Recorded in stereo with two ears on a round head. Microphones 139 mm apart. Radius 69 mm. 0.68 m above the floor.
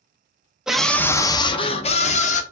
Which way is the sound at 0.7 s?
5° right (ahead or behind).